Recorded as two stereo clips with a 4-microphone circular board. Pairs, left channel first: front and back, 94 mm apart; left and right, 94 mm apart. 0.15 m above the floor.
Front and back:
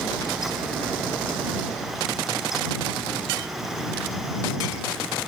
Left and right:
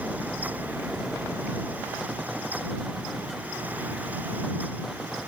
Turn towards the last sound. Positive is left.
No sound to turn to.